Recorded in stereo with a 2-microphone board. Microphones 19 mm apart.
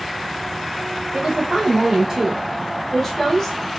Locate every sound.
1.1 s a woman speaking: 40° right (ahead or behind), 1.2 m; by 3.6 s 30° left (ahead or behind), 1.0 m